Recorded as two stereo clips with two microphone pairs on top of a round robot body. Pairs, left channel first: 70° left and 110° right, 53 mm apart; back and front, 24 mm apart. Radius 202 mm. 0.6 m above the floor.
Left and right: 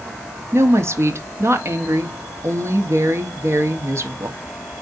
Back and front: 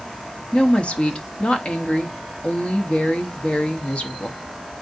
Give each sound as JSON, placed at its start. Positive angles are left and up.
{"t": 0.5, "sound": "a woman speaking", "azimuth_deg": -135, "distance_m": 1.7}